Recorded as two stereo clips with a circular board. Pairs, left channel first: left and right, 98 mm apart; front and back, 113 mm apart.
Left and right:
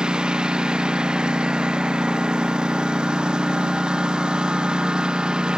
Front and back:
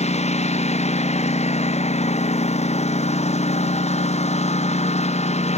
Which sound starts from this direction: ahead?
A lawn mower, at 0.0 s.